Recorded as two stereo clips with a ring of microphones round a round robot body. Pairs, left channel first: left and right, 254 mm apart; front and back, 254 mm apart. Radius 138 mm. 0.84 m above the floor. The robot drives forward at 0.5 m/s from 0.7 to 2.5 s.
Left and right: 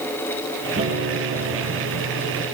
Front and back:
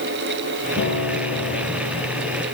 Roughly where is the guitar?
Ahead right.